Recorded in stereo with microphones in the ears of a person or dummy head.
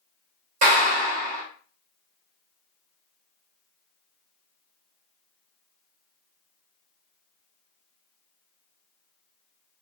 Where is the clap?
40° right (ahead or behind), 0.6 m.